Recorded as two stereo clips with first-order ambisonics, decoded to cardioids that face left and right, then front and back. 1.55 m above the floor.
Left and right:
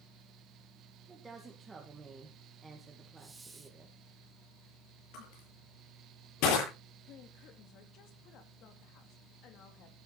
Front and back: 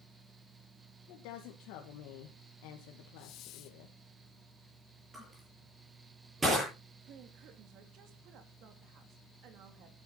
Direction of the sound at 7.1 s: 135° left.